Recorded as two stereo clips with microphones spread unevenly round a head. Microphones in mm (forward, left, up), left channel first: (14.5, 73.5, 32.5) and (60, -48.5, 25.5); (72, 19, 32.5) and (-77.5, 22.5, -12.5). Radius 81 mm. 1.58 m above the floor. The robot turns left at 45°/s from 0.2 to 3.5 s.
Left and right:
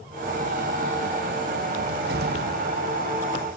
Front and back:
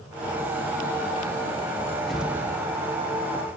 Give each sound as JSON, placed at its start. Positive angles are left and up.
{"t": 1.8, "sound": "a cupboard door", "azimuth_deg": -70, "distance_m": 0.6}